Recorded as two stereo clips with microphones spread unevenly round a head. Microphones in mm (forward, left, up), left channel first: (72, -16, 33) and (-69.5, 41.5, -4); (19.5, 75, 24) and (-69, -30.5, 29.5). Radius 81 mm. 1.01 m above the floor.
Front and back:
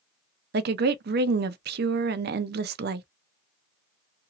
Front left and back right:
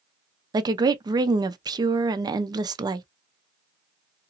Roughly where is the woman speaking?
Behind.